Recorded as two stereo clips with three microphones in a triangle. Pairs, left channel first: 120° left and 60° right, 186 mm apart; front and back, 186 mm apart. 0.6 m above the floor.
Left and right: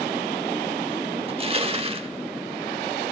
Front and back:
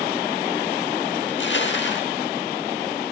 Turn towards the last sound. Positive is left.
turn(degrees=-5)